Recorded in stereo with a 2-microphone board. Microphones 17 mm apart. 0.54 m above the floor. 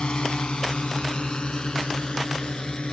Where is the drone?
75° left (ahead or behind); by 2.9 s 65° left (ahead or behind).